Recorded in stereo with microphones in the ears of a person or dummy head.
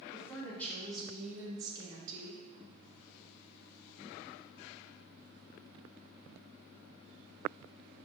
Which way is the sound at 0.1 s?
15° left (ahead or behind).